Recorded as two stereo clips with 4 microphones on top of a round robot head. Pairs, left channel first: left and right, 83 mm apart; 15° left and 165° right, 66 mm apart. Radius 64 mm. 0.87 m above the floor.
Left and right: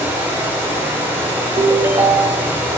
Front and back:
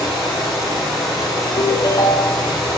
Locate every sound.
0.0 s running water: 20° right, 4.5 m
1.6 s a ringtone: 30° right, 0.8 m